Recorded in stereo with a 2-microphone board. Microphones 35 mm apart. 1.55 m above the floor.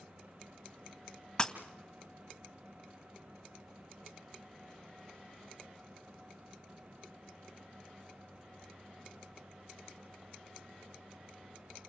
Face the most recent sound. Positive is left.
turn(degrees=20)  # may be behind; listen again after turning